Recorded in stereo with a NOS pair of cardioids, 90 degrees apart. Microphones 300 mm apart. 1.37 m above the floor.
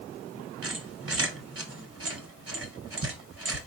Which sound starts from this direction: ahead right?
A squeak, at 0.6 s.